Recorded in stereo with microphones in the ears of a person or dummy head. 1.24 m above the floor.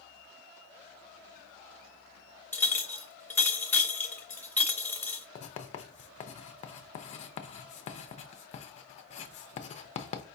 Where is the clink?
15° left (ahead or behind), 0.9 m.